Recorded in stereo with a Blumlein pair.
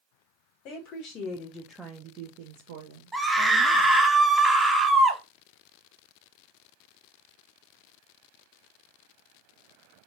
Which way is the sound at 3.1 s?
Straight ahead.